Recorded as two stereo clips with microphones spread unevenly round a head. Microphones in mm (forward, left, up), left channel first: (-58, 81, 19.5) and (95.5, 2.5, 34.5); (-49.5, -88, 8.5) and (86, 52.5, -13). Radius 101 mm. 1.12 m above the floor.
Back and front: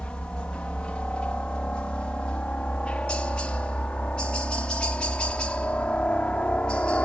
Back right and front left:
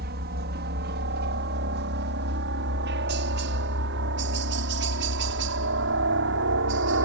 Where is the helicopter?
70° left.